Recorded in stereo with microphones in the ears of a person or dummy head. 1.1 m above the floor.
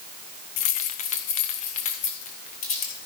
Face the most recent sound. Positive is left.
turn(degrees=40)  # may be behind; listen again after turning